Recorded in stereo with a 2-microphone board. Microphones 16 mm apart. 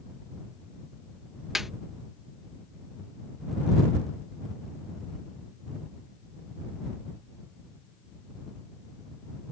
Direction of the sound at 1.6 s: 15° right (ahead or behind).